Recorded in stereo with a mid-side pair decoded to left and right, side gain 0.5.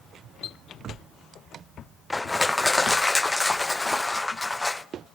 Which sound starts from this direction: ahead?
Crushing, at 2.1 s.